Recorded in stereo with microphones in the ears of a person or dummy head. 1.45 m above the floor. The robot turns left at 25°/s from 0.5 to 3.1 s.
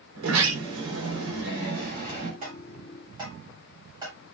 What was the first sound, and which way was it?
A sliding door, 95° right.